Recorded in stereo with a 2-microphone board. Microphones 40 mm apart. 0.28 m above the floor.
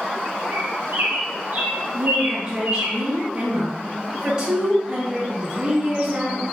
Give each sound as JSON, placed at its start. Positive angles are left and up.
{"t": 0.5, "sound": "a bird", "side_deg": -70, "distance_m": 1.4}
{"t": 1.9, "sound": "a woman speaking", "side_deg": -25, "distance_m": 1.1}